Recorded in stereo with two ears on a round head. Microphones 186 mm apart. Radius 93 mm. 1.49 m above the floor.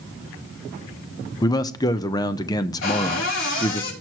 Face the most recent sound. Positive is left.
turn(degrees=65)  # may be behind; listen again after turning